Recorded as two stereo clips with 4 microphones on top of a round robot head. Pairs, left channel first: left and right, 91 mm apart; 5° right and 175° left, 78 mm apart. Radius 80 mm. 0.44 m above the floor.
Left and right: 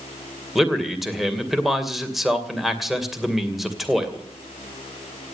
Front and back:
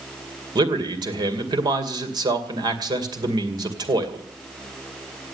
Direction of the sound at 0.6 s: Straight behind.